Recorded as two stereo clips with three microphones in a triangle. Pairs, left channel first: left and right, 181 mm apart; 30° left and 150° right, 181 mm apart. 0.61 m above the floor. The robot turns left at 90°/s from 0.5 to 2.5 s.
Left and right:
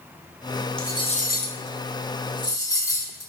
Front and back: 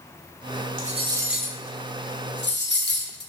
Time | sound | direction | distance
0.8 | cutlery clinking | 175° left | 0.6 m